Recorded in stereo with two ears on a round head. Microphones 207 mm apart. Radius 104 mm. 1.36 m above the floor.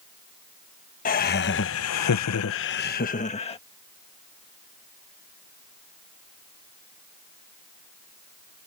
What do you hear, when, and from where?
1.1 s laughter: 35° left (ahead or behind); by 3.6 s 25° left (ahead or behind)